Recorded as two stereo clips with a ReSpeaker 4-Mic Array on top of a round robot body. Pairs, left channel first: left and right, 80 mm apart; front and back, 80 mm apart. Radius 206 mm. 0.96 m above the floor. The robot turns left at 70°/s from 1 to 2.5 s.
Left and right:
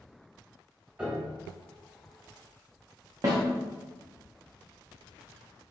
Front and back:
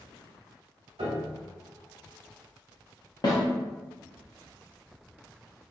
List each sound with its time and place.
1.0 s a piano: 165° right, 0.9 m; by 1.4 s 165° left, 0.9 m
3.2 s a snare drum: 40° right, 0.7 m